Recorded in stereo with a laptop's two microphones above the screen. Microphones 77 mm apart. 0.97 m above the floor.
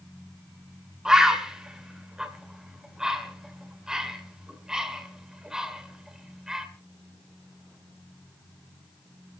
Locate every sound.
1.1 s a bird: 10° right (ahead or behind), 3 m